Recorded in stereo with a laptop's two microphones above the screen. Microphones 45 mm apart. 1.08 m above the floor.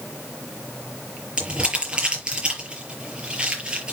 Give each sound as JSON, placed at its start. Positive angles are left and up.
{"t": 1.4, "sound": "crumpling", "side_deg": -20, "distance_m": 7.0}